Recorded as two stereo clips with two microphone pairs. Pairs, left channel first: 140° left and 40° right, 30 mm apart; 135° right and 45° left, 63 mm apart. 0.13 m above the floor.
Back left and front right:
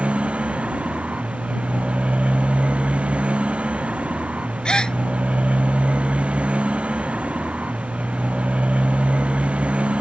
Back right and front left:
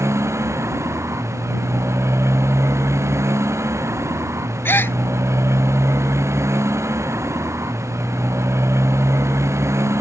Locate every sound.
0.0 s a motorcycle: 5° left
4.7 s a gasp: 170° right